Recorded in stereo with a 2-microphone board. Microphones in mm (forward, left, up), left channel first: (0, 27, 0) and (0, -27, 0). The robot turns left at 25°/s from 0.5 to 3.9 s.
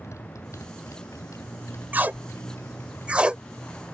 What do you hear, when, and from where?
0.0 s a motorcycle: 70° left (ahead or behind); by 3.9 s 25° left (ahead or behind)
1.9 s tape being pulled: 40° right (ahead or behind); by 3.4 s 20° right (ahead or behind)